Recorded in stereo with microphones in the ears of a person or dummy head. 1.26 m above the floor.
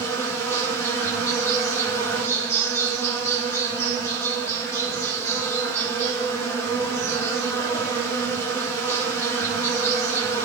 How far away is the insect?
About 9 m.